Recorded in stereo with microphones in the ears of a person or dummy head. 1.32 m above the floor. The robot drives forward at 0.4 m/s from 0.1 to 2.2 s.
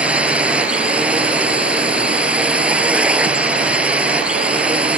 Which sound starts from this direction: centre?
A drone, at 0.0 s.